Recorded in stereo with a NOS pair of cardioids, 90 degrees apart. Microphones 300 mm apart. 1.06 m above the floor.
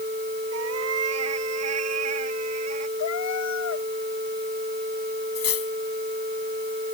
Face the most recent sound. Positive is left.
turn(degrees=50)